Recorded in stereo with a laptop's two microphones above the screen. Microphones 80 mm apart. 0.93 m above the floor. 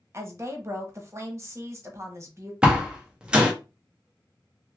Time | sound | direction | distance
0.1 | a woman speaking | 35° right (ahead or behind) | 0.8 m
2.6 | a door slam | 15° right (ahead or behind) | 1.0 m